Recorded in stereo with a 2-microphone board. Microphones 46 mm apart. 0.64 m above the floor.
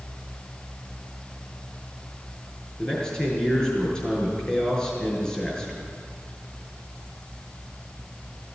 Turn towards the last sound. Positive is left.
turn(degrees=15)  # may be behind; listen again after turning